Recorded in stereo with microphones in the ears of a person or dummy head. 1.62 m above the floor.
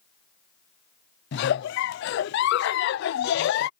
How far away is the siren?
No siren in this recording.